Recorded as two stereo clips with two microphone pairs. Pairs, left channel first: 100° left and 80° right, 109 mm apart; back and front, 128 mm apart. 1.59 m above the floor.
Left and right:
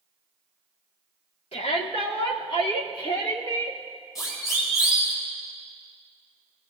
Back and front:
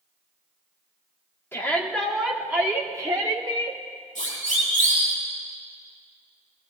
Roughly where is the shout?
Left.